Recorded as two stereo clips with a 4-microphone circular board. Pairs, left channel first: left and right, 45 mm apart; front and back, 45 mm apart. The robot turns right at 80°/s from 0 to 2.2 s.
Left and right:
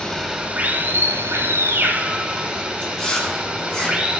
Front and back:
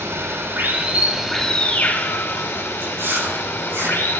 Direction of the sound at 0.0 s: 165° left.